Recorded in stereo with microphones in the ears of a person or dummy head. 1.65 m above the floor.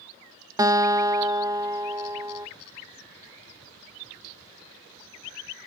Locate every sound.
0.6 s a guitar: 20° right (ahead or behind), 0.5 m